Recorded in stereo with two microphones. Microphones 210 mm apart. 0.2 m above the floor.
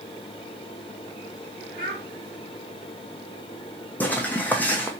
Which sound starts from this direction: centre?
Footsteps, at 4.0 s.